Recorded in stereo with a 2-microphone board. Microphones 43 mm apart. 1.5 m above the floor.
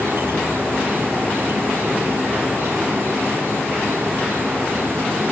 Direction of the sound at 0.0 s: 60° right (ahead or behind).